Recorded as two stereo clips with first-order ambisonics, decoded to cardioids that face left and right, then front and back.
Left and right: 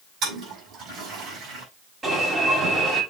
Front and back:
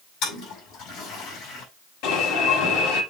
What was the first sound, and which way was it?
A toilet flushing, 35° right.